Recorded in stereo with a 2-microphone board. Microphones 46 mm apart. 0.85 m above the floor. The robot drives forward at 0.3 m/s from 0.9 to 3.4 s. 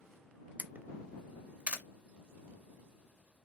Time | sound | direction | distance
0.6 | a camera shutter | 35° right (ahead or behind) | 0.6 m